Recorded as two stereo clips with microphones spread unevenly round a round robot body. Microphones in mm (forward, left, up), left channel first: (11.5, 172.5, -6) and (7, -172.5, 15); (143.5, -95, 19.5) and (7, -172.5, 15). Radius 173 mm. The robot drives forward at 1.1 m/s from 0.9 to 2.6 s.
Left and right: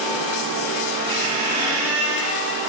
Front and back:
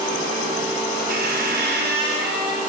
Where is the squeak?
125° right, 1.6 m; by 2.6 s 155° right, 3 m.